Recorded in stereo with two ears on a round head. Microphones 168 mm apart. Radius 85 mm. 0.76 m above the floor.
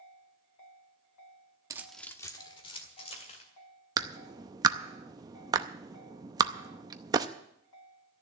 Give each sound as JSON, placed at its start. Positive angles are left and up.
{"t": 1.7, "sound": "keys jangling", "side_deg": -20, "distance_m": 0.7}
{"t": 4.0, "sound": "a clap", "side_deg": -20, "distance_m": 0.6}